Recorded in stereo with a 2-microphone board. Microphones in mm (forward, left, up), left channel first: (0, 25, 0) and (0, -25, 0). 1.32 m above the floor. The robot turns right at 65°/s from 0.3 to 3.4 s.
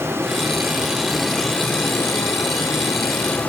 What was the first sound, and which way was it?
Running water, 55° right.